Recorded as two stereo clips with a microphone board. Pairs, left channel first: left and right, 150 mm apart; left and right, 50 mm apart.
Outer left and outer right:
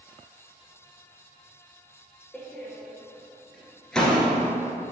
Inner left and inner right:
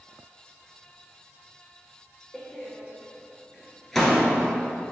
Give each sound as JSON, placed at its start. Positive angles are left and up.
{"t": 2.3, "sound": "a door slam", "side_deg": 5, "distance_m": 1.3}